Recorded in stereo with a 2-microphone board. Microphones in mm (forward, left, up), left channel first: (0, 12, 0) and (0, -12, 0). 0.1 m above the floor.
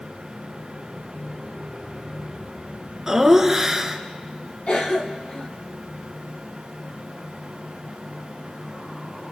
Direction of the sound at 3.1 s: 20° right (ahead or behind).